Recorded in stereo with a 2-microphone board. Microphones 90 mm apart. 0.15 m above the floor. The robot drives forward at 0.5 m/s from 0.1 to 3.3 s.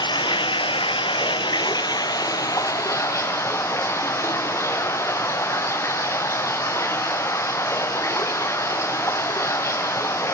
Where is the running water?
65° left (ahead or behind), 0.9 m; by 10.3 s 35° left (ahead or behind), 1.5 m.